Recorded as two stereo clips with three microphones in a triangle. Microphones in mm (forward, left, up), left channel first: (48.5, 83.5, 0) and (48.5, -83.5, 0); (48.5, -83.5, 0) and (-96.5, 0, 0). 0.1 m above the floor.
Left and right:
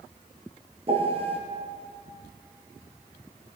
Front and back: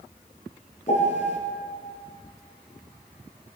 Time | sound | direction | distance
0.9 | a piano | 55° right | 1.4 m